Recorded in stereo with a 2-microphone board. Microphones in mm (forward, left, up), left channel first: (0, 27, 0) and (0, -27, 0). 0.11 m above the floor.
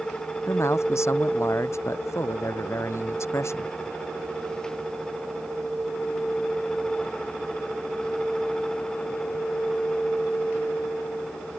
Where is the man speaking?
60° left (ahead or behind).